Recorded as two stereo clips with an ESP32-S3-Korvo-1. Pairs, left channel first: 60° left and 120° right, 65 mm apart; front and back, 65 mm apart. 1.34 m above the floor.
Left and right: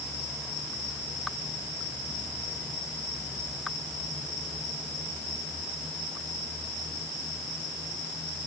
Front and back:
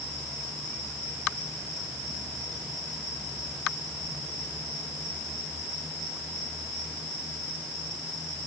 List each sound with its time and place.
Only background noise.